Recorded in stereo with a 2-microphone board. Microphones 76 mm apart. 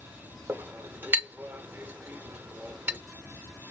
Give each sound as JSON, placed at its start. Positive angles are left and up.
{"t": 0.5, "sound": "a clink", "side_deg": -25, "distance_m": 0.8}